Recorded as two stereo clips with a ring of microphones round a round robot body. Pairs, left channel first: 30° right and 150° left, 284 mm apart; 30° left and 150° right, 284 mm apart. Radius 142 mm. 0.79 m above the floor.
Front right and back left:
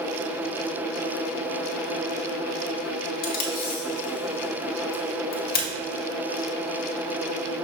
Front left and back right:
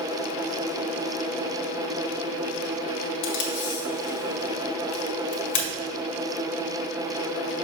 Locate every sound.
3.2 s tape being pulled: 25° left, 1.5 m